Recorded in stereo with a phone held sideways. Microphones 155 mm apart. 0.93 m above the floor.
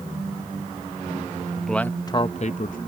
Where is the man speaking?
Centre (ahead or behind); by 2.8 s 65° left (ahead or behind).